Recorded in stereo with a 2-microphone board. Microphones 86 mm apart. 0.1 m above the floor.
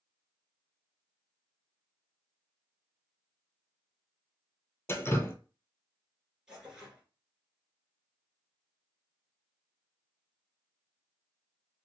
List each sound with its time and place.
4.9 s dripping: 30° left (ahead or behind), 0.6 m
6.5 s tearing paper: 5° right (ahead or behind), 1.6 m